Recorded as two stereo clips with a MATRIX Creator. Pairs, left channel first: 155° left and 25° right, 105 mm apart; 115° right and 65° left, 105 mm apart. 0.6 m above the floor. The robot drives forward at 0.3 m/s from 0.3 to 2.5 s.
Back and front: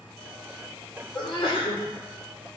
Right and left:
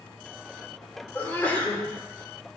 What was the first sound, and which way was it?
A sneeze, 175° left.